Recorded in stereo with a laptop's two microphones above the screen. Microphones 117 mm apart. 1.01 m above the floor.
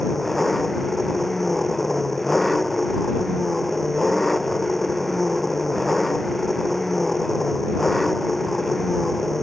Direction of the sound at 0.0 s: Centre (ahead or behind).